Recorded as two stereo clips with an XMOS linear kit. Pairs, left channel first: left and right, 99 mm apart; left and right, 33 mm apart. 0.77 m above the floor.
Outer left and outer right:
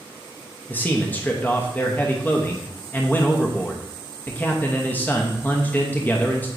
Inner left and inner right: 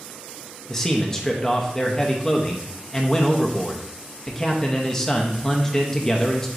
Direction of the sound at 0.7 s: 20° left (ahead or behind).